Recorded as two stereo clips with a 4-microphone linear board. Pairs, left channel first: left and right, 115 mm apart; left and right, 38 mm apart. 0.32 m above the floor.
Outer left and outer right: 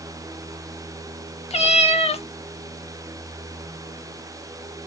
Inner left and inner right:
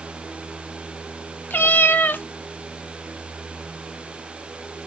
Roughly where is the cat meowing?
Left.